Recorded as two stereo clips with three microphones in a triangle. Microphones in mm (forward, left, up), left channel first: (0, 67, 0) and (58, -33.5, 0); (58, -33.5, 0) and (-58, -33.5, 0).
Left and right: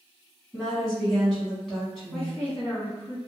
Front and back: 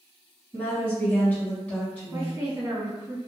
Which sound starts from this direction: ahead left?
A woman speaking, at 0.5 s.